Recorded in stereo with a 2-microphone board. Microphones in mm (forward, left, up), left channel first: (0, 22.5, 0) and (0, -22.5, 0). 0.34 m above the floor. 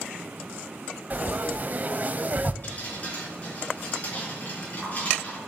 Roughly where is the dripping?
Left.